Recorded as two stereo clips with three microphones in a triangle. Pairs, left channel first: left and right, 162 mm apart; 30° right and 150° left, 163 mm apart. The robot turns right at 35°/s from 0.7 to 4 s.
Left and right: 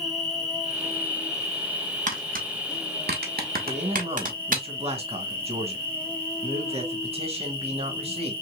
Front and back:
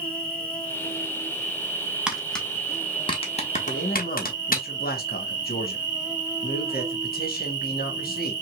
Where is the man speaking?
50° right, 1.6 m; by 8.3 s 40° right, 1.6 m.